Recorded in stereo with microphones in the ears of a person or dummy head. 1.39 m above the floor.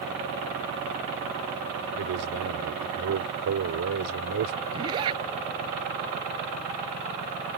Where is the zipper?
25° right (ahead or behind).